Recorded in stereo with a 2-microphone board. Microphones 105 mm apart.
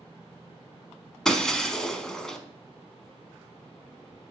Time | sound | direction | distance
1.2 | breaking glass | 5° left (ahead or behind) | 0.6 m